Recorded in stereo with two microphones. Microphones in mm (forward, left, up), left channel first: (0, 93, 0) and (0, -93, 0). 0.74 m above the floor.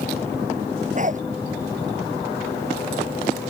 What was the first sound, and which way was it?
A dog barking, 40° right (ahead or behind).